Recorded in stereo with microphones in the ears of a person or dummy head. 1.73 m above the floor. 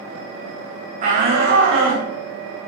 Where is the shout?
40° right (ahead or behind), 0.8 m; by 2.1 s 70° right (ahead or behind), 1.3 m.